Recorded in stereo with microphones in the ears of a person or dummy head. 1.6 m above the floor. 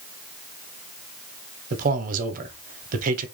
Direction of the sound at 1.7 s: 50° right (ahead or behind).